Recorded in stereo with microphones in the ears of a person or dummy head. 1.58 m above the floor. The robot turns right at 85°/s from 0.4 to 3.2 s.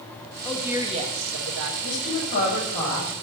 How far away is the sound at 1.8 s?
About 7.5 m.